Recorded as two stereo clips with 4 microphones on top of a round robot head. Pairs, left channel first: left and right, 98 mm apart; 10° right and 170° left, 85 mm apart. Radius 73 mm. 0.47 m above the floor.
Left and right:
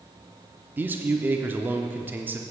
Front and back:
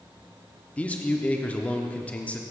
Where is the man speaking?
55° right, 0.7 m.